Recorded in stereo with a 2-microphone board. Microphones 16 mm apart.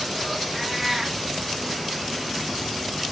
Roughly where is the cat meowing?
Centre.